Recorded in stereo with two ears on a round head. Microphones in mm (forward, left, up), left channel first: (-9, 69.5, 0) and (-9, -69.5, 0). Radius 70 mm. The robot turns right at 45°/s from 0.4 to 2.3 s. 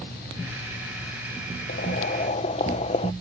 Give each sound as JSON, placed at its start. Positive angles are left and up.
{"t": 1.7, "sound": "boiling", "side_deg": 70}